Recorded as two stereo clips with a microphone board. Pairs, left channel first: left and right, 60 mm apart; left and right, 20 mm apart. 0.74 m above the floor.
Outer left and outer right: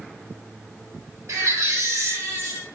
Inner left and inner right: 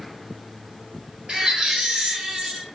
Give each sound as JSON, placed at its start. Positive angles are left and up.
{"t": 1.3, "sound": "a baby crying", "side_deg": -65, "distance_m": 1.6}